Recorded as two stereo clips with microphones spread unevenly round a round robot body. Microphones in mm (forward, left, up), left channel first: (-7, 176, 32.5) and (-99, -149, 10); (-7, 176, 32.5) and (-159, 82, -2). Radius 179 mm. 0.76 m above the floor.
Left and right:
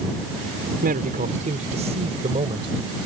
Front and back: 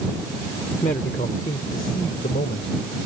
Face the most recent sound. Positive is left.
turn(degrees=-30)